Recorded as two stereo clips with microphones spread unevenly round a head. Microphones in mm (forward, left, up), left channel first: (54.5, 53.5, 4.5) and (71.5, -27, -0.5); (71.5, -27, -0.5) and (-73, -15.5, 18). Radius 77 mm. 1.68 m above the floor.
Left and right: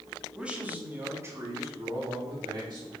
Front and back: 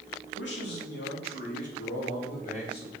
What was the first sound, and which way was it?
A man speaking, straight ahead.